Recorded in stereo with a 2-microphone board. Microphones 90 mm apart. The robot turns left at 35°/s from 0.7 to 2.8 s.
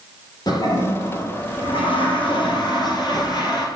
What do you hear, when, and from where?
0.5 s a toilet flushing: 130° left, 2 m; by 3.7 s 60° left, 2 m